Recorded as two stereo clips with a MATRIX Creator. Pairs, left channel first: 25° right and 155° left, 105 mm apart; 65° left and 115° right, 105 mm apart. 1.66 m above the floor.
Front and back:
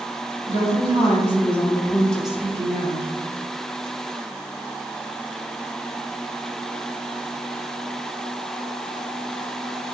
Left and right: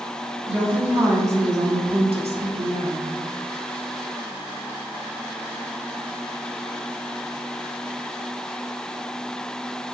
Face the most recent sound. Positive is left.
turn(degrees=-160)